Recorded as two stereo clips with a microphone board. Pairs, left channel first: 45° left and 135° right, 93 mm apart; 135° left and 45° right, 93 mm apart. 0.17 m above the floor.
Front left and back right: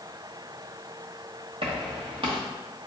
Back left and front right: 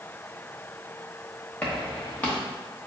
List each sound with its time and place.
1.6 s footsteps: 150° right, 1.6 m